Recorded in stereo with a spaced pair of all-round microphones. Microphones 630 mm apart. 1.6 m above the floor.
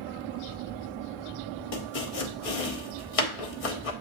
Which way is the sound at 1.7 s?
60° left (ahead or behind).